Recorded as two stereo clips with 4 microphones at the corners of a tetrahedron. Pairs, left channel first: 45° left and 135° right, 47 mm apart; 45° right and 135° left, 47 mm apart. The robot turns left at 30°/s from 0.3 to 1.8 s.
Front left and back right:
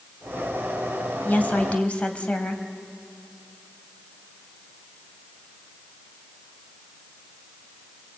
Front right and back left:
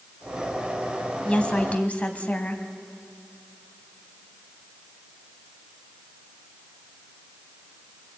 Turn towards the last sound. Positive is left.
turn(degrees=-5)